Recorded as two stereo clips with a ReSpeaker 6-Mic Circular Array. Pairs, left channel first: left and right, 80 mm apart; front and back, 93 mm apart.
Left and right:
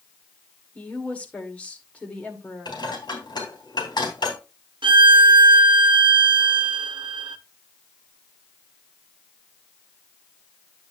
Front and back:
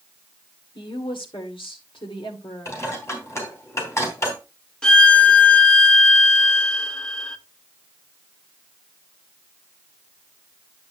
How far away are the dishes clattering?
About 3.5 m.